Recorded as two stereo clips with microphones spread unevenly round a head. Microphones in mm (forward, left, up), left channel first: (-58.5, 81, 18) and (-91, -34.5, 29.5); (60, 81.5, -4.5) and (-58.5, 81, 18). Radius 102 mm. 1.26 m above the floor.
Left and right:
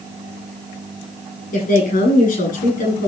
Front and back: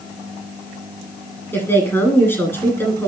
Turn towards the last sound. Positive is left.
turn(degrees=75)